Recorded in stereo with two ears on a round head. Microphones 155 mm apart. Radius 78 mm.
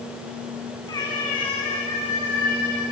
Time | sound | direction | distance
0.9 | a cat meowing | 25° left (ahead or behind) | 6 m